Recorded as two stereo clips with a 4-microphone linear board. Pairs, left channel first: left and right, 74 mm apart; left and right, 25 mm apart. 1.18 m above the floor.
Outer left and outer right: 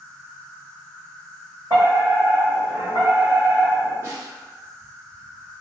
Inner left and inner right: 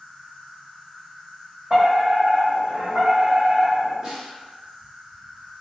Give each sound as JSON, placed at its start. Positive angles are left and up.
{"t": 0.0, "sound": "an insect", "side_deg": -60, "distance_m": 1.7}
{"t": 1.7, "sound": "a fire alarm", "side_deg": -55, "distance_m": 1.8}
{"t": 4.0, "sound": "a snare drum", "side_deg": -35, "distance_m": 1.2}